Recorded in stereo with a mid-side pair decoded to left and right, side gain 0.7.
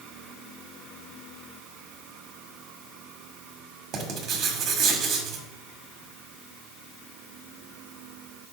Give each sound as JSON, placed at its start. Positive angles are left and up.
{"t": 3.9, "sound": "writing", "azimuth_deg": -45, "distance_m": 1.5}